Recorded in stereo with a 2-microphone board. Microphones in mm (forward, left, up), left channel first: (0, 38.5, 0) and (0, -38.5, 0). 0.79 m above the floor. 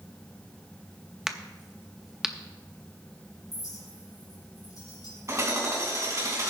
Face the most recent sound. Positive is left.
turn(degrees=-40)  # may be behind; listen again after turning